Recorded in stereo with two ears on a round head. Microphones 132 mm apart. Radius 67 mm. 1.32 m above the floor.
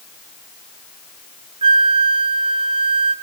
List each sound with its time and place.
1.6 s a flute: 35° right (ahead or behind), 1.0 m